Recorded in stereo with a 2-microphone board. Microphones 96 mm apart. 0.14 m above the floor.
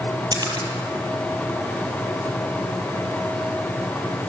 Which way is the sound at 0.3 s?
45° right (ahead or behind).